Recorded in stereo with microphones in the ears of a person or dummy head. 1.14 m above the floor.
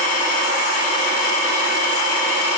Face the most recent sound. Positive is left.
No sound to turn to.